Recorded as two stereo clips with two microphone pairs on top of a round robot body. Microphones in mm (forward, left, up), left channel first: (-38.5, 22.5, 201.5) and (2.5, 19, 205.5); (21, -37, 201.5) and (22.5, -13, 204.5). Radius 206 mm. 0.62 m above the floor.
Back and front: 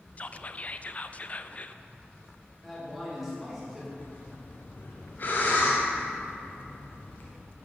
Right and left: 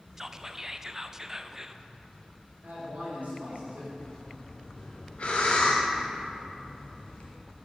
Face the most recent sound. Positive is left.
turn(degrees=-135)